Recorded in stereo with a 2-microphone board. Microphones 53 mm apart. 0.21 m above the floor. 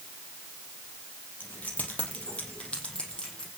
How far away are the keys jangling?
About 5.5 m.